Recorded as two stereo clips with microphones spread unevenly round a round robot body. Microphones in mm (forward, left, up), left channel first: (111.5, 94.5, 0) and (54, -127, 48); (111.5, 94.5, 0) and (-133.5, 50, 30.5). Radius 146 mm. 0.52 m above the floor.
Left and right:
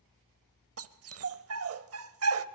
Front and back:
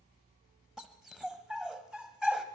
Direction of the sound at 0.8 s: 80° right.